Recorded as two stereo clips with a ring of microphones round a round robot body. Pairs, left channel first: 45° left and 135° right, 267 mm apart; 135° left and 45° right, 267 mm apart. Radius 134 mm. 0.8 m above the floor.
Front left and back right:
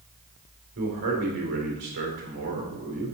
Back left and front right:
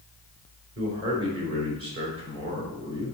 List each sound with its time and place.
0.8 s a man speaking: 85° right, 3 m